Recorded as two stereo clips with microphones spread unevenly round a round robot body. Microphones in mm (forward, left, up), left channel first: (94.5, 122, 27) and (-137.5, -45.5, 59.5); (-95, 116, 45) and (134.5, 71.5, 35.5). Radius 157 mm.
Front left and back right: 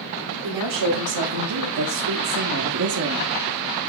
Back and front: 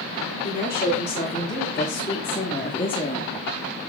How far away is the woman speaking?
About 3 m.